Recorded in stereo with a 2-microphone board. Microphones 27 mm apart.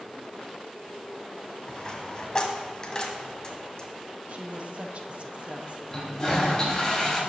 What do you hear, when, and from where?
1.7 s a dropped coin: 30° left (ahead or behind), 1.7 m
4.3 s a woman speaking: 55° right (ahead or behind), 1.0 m
5.9 s a toilet flushing: 25° left (ahead or behind), 3 m